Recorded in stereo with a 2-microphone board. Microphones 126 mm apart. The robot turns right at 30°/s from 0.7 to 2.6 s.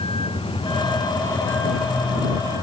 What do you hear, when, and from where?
0.0 s a vehicle: 50° left (ahead or behind); by 2.6 s 30° right (ahead or behind)